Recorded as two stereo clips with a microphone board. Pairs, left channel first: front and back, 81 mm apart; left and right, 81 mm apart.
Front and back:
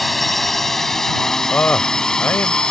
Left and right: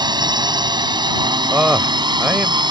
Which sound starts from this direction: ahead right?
A man speaking, at 1.5 s.